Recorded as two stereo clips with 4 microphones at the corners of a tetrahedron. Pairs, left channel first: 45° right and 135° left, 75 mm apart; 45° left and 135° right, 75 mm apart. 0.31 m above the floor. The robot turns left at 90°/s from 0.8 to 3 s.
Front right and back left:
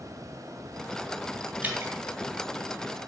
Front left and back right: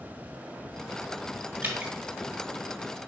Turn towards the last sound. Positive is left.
turn(degrees=55)